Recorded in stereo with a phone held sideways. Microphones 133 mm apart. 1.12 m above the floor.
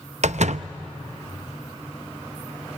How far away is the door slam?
About 0.6 m.